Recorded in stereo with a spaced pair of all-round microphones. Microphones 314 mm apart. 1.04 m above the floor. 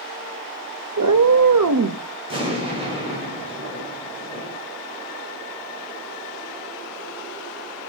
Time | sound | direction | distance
1.0 | a cat meowing | 65° right (ahead or behind) | 0.6 m
2.3 | an explosion | 15° right (ahead or behind) | 4.5 m